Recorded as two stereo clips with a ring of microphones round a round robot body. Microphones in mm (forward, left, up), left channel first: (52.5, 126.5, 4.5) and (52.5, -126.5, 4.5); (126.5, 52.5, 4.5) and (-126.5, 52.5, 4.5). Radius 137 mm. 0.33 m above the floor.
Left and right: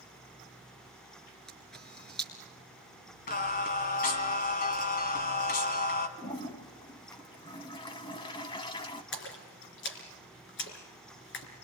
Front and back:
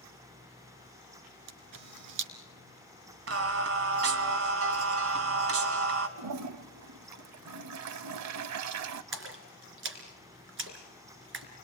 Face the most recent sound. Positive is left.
turn(degrees=140)